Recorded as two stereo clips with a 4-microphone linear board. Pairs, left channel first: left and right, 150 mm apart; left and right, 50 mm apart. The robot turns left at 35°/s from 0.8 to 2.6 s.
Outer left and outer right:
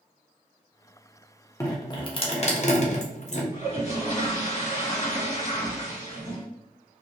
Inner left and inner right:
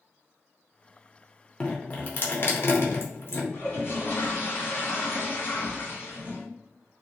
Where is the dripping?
20° left (ahead or behind), 0.6 m; by 3.4 s 50° left (ahead or behind), 0.6 m.